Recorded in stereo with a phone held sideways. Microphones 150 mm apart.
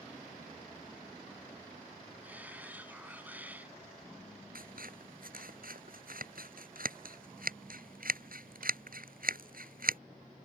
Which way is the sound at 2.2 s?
10° right (ahead or behind).